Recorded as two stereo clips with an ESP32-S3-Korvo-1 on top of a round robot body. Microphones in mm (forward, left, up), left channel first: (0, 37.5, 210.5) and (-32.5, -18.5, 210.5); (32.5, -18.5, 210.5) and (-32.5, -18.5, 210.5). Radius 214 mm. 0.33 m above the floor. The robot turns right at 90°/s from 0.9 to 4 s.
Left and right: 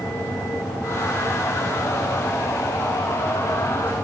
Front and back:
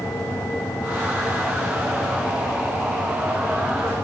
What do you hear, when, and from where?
Only background noise.